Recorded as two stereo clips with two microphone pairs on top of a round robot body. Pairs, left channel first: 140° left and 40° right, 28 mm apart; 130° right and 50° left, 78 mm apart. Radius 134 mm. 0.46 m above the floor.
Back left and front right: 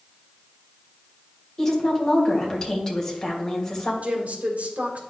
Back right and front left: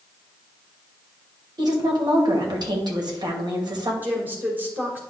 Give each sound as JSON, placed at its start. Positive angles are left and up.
{"t": 1.6, "sound": "a woman speaking", "azimuth_deg": 70, "distance_m": 2.5}
{"t": 4.0, "sound": "a woman speaking", "azimuth_deg": -15, "distance_m": 2.5}